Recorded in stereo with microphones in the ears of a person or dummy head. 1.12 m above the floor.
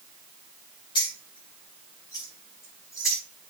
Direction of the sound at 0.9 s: 35° left (ahead or behind).